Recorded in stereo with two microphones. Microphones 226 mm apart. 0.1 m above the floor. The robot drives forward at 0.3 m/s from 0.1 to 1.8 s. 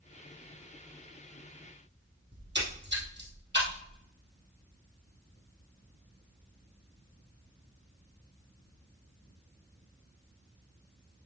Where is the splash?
50° right (ahead or behind), 2.5 m.